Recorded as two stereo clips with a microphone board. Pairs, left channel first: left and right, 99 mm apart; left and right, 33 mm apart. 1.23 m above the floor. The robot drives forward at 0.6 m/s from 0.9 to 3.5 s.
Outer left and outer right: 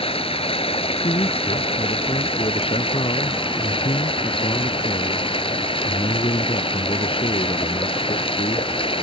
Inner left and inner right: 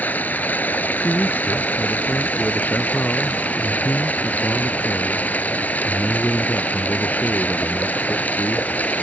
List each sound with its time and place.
0.0 s running water: 70° left (ahead or behind); by 9.0 s 65° left (ahead or behind)
1.0 s a man speaking: 70° left (ahead or behind); by 8.7 s 65° left (ahead or behind)